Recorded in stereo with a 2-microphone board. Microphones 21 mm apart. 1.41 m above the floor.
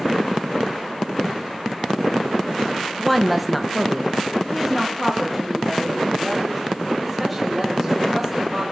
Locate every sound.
3.0 s a woman speaking: centre (ahead or behind), 0.8 m; by 8.6 s 5° right (ahead or behind), 5.5 m